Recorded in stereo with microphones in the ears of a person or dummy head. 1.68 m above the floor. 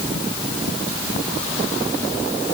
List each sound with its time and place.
Only background noise.